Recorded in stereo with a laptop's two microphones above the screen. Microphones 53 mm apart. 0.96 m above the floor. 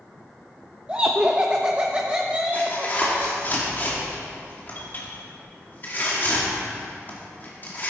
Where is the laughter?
20° right (ahead or behind), 0.8 m.